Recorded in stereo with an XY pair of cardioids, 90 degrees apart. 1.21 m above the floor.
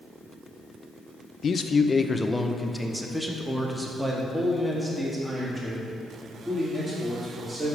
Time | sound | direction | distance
1.4 | a man speaking | 55° left | 0.6 m